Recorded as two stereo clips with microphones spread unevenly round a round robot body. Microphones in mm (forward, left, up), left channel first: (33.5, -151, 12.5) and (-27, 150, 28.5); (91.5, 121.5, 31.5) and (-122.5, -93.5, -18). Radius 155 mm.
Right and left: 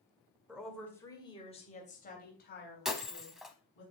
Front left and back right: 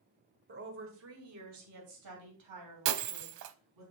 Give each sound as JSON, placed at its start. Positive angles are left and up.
{"t": 0.5, "sound": "a woman speaking", "azimuth_deg": -170, "distance_m": 1.8}
{"t": 2.9, "sound": "breaking glass", "azimuth_deg": -170, "distance_m": 0.6}